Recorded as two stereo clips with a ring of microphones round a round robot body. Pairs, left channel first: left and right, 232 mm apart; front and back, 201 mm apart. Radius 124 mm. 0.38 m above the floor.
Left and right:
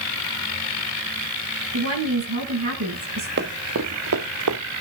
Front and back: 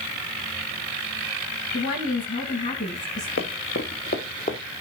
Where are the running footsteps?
45° right, 1.8 m; by 4.6 s 65° right, 1.8 m.